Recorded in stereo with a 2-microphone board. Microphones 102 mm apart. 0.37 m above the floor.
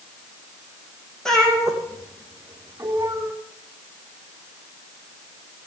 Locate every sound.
1.2 s a cat meowing: 5° left (ahead or behind), 4.5 m; by 3.3 s 30° right (ahead or behind), 4 m